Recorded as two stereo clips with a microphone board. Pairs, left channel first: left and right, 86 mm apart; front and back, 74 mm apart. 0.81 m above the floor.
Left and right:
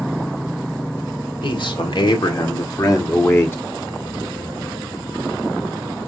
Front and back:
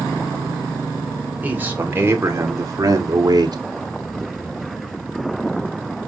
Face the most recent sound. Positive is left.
turn(degrees=155)